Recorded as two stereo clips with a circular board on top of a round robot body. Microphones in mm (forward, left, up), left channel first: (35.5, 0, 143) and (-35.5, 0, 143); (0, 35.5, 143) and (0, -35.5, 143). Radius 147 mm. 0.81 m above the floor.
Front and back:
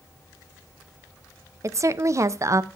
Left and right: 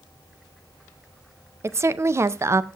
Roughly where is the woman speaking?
Behind right.